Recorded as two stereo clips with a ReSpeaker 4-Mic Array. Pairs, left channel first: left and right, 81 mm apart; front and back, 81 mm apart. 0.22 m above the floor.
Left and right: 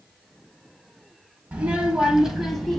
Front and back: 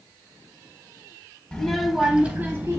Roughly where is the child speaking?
Ahead right.